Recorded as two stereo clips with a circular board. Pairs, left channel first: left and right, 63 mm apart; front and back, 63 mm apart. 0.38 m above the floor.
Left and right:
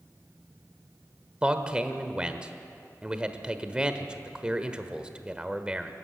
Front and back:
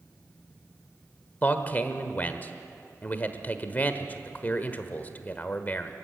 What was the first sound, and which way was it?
A man speaking, 30° right.